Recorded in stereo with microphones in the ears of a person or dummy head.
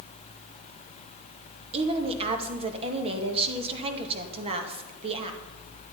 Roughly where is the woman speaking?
Right.